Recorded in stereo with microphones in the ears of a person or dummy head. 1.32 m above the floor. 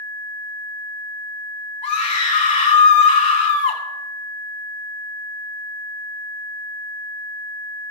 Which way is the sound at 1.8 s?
35° left (ahead or behind).